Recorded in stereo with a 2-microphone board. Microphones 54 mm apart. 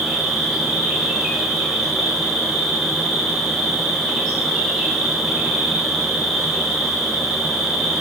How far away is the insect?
About 6.5 m.